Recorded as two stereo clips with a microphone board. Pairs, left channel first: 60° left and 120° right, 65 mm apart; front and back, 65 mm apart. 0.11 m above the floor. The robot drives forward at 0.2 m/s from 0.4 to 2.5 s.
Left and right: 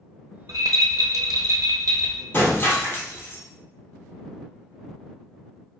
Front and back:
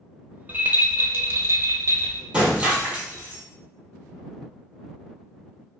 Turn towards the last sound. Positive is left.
turn(degrees=115)